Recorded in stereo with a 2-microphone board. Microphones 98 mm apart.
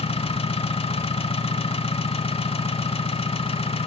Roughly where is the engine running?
Left.